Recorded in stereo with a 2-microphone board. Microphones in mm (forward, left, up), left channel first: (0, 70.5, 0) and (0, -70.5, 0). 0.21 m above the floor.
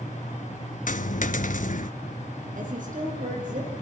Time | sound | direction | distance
0.9 | a dropped coin | 70° left (ahead or behind) | 0.8 m
2.5 | a woman speaking | 70° right (ahead or behind) | 6.5 m